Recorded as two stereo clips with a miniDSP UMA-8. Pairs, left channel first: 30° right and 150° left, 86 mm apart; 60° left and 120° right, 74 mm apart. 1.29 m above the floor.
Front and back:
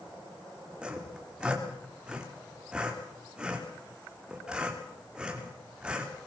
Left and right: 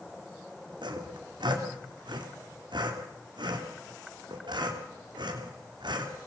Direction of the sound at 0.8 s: 130° right.